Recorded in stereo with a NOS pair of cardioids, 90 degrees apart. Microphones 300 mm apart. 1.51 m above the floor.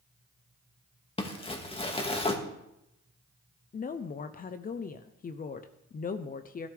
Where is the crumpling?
20° left, 1.9 m.